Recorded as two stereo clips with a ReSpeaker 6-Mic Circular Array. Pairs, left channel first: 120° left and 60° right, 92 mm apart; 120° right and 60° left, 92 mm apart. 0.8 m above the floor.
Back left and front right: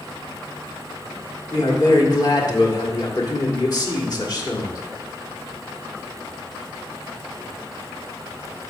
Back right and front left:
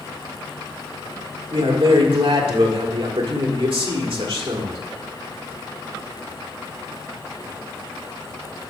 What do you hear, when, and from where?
1.5 s a man speaking: 75° left, 1.5 m